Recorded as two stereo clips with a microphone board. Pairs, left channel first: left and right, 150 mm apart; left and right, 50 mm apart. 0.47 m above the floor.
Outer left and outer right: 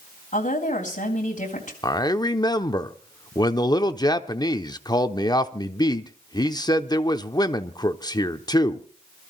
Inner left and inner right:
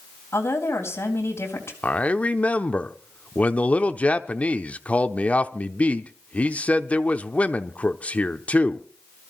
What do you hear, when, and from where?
0.3 s a woman speaking: 55° left (ahead or behind), 3 m
1.8 s a man speaking: 30° left (ahead or behind), 0.7 m